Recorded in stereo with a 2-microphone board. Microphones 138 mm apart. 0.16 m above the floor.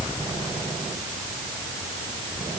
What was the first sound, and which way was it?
Only background noise.